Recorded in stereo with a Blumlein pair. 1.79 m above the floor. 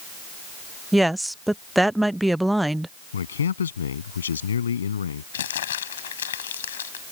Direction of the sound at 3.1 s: 70° left.